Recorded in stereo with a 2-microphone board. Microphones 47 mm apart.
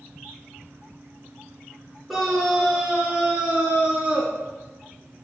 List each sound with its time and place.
2.1 s a scream: centre (ahead or behind), 2.5 m; by 4.3 s 25° right (ahead or behind), 3 m